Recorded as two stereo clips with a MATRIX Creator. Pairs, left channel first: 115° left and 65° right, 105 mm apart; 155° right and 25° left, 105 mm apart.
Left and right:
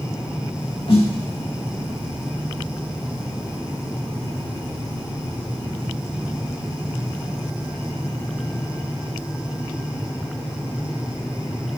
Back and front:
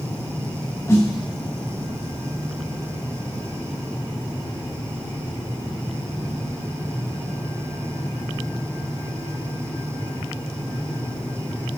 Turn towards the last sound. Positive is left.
turn(degrees=140)